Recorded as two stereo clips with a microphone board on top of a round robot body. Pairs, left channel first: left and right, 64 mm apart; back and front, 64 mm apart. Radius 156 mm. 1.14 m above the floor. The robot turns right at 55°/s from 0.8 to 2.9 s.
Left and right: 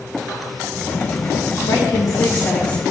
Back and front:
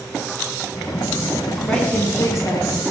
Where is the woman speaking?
105° left, 2.0 m; by 2.8 s 170° left, 2.0 m.